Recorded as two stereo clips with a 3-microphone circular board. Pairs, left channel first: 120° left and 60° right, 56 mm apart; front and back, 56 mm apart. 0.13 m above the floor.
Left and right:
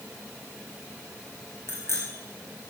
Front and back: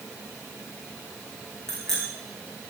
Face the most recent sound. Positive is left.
turn(degrees=80)